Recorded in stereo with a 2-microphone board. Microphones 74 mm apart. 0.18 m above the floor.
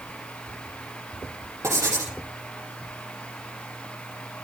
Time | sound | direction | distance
1.6 | writing | 40° right (ahead or behind) | 5.5 m